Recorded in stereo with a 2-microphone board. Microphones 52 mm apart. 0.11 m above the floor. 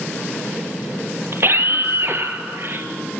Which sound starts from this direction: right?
A scream, at 1.3 s.